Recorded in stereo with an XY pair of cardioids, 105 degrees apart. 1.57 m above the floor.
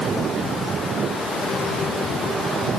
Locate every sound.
Only background noise.